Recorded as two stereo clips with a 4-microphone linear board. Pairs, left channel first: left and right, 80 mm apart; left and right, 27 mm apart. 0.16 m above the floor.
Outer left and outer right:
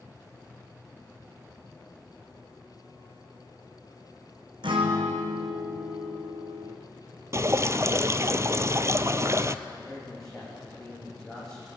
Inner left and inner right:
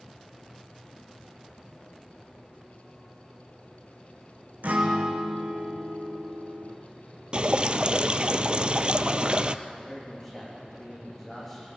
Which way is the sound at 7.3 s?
35° right (ahead or behind).